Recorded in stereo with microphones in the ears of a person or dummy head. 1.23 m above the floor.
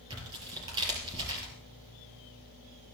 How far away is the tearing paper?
About 5 m.